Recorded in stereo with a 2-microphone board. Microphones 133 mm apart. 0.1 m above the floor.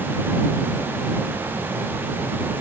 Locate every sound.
Only background noise.